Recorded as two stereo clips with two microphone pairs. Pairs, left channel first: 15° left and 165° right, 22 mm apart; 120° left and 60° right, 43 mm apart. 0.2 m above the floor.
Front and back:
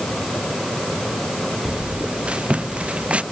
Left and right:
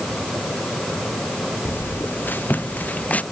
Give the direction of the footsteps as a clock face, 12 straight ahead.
7 o'clock.